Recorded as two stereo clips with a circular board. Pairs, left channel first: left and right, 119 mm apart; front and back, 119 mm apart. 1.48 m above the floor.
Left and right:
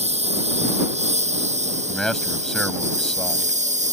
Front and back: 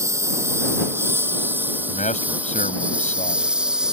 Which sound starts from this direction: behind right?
A lawn mower, at 0.0 s.